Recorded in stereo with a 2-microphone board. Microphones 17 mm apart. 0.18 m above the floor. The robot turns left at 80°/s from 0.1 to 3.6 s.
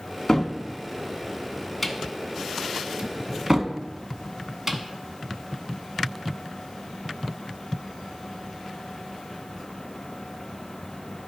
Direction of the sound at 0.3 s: 35° left (ahead or behind).